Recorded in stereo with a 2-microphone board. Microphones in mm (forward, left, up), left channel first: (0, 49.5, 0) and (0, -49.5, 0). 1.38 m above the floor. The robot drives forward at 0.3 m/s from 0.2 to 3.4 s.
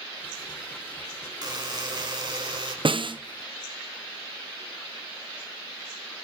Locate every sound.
1.4 s a buzzer: 45° right (ahead or behind), 3 m; by 2.8 s 50° right (ahead or behind), 2.5 m
2.9 s a snare drum: 60° right (ahead or behind), 0.7 m; by 3.2 s 55° right (ahead or behind), 0.8 m